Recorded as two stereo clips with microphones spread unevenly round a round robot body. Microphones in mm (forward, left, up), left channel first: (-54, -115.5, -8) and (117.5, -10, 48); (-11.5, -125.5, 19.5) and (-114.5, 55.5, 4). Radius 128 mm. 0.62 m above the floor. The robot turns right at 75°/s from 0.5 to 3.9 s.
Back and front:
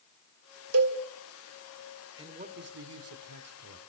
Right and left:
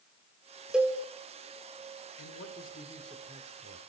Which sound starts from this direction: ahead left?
A cowbell, at 0.7 s.